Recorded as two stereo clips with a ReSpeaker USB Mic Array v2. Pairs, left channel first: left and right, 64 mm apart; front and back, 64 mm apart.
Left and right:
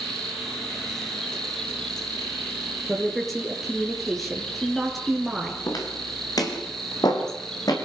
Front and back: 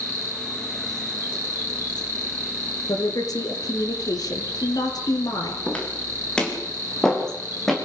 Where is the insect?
5° left, 1.9 m.